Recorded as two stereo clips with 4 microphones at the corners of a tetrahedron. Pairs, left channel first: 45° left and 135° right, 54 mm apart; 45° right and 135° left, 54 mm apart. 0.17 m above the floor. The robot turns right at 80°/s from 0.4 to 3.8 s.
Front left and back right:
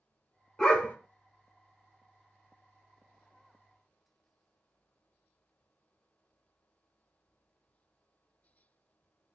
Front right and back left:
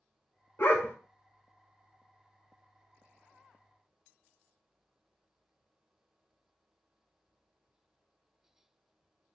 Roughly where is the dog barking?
Ahead right.